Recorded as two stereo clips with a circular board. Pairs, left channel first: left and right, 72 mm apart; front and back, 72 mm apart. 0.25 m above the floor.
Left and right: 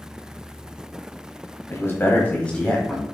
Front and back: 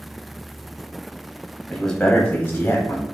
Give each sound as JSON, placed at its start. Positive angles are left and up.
{"t": 1.7, "sound": "a man speaking", "azimuth_deg": 85, "distance_m": 1.2}